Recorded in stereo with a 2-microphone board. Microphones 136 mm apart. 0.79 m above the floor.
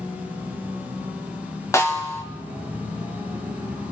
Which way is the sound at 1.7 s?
20° left (ahead or behind).